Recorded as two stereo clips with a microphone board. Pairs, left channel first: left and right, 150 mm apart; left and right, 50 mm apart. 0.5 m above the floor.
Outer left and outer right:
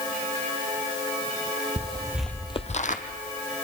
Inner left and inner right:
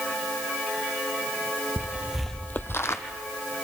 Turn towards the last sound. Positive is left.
turn(degrees=60)  # may be behind; listen again after turning